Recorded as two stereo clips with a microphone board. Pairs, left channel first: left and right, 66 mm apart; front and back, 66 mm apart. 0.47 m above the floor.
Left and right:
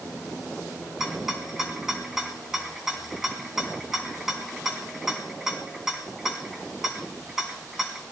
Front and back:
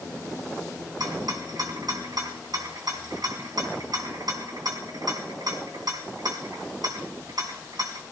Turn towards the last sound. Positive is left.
turn(degrees=-175)